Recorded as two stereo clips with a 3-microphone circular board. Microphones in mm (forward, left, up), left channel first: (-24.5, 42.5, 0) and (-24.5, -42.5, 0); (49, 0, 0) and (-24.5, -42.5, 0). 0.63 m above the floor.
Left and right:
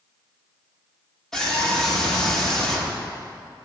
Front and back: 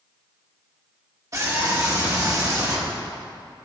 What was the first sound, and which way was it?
A scream, 175° left.